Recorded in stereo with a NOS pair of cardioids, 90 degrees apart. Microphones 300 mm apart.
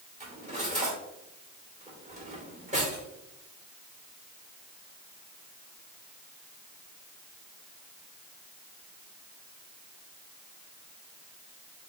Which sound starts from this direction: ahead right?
Cutlery clinking, at 0.2 s.